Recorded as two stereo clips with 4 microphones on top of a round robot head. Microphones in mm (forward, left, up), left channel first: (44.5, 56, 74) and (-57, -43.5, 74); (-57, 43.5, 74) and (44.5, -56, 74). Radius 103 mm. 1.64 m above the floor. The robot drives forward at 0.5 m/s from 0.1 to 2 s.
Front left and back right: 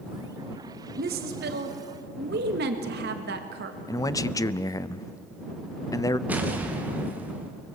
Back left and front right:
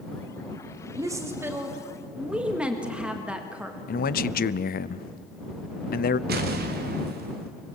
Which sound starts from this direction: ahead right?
An explosion, at 6.3 s.